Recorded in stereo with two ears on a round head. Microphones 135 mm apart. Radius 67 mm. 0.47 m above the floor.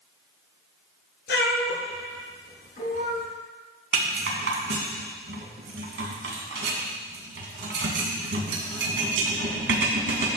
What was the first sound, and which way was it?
A cat meowing, 80° left.